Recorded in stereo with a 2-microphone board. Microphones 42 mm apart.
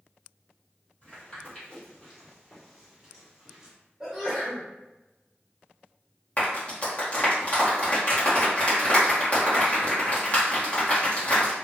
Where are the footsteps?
35° left (ahead or behind), 1.9 m; by 3.8 s 15° right (ahead or behind), 1.7 m.